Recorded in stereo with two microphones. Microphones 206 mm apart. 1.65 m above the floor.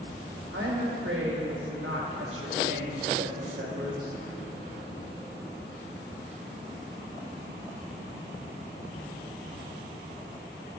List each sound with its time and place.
0.5 s a woman speaking: 85° right, 2 m